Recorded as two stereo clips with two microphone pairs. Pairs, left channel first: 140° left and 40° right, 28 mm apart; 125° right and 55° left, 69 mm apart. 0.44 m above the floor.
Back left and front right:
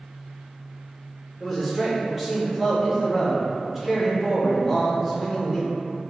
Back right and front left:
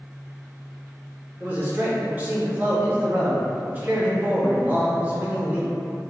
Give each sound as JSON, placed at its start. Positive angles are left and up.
{"t": 1.4, "sound": "a man speaking", "azimuth_deg": 25, "distance_m": 0.8}